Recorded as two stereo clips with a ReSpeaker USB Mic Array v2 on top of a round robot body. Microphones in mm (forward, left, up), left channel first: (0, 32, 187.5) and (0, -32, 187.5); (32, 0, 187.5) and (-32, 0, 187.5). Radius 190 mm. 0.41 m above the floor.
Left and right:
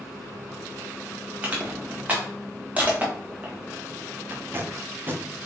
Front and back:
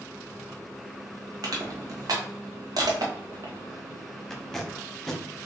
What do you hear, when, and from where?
1.4 s crushing: 160° right, 1.4 m
4.3 s tape being pulled: 80° right, 1.3 m